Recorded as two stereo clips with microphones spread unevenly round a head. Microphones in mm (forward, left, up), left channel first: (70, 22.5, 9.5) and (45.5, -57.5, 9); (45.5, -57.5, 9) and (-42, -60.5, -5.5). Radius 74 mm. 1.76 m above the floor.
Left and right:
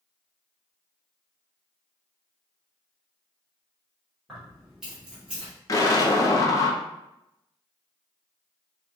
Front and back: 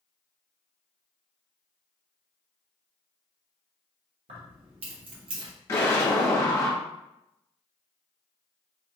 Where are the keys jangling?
165° left, 1.4 m; by 5.5 s straight behind, 0.8 m.